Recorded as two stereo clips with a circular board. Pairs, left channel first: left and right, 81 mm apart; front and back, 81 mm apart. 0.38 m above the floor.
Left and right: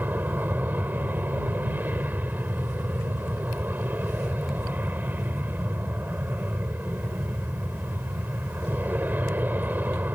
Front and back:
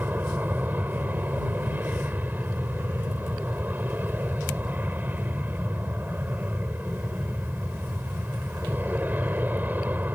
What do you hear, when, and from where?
0.0 s an aircraft: 135° right